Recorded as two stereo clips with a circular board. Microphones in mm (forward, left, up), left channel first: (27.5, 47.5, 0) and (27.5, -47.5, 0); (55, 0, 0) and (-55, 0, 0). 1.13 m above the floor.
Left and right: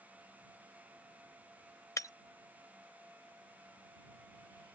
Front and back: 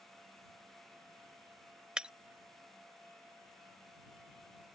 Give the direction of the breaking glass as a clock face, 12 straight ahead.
9 o'clock.